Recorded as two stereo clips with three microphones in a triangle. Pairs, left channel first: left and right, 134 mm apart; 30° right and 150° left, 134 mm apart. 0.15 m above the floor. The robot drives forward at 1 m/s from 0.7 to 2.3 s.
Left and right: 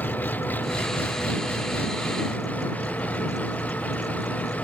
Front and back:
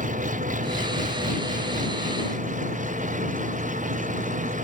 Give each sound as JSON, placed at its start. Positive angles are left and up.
{"t": 0.0, "sound": "an engine running", "azimuth_deg": 165}